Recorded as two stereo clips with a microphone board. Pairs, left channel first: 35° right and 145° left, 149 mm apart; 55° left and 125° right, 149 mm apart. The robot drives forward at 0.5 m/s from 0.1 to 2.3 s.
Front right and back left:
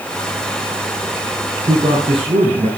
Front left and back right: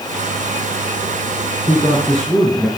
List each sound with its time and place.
1.7 s a woman speaking: 125° left, 1.5 m; by 2.7 s 140° left, 1.6 m